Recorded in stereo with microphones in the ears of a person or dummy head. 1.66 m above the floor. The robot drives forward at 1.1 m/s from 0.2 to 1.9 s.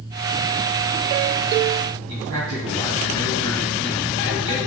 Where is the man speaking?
80° right, 3.5 m.